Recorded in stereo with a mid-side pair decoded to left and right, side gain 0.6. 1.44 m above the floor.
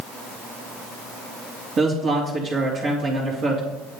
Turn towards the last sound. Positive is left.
turn(degrees=-40)